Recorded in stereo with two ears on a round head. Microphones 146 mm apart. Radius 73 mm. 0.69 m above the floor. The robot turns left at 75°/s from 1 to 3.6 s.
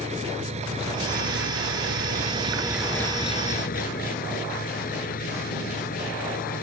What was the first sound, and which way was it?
An engine running, 40° right.